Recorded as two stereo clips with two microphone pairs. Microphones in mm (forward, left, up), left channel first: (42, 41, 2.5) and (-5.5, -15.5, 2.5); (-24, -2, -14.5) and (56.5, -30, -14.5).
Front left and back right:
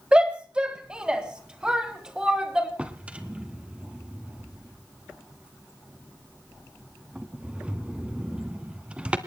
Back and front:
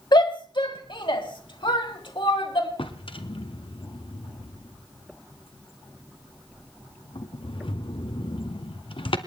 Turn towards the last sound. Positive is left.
turn(degrees=155)